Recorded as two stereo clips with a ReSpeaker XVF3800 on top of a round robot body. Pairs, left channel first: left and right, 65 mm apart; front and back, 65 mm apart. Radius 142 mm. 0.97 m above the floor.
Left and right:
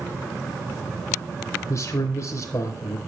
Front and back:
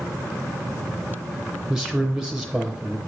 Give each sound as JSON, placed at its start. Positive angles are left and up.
{"t": 1.7, "sound": "a man speaking", "azimuth_deg": 100, "distance_m": 1.0}